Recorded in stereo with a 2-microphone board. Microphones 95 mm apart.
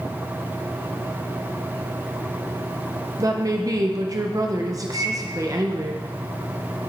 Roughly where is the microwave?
Right.